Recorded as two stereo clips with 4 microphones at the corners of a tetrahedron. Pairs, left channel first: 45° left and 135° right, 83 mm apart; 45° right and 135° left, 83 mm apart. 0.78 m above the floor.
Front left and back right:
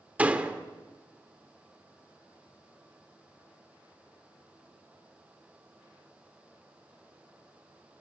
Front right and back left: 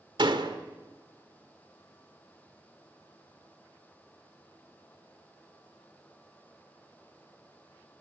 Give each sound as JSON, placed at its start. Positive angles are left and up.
{"t": 0.2, "sound": "a door slam", "azimuth_deg": 150, "distance_m": 1.9}